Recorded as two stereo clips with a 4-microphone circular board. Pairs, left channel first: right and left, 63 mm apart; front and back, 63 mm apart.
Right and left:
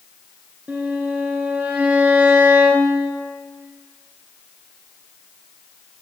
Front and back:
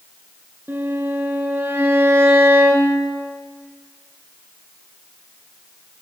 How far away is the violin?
About 1.0 m.